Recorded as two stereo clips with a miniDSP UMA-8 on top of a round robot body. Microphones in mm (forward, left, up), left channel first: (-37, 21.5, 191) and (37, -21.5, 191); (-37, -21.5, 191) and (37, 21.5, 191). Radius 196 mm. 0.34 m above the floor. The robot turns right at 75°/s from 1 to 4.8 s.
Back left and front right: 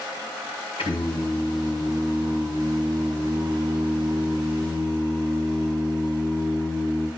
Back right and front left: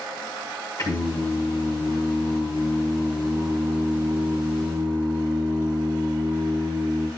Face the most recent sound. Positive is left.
turn(degrees=85)